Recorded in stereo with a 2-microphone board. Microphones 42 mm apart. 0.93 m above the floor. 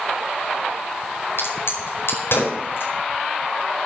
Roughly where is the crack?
Left.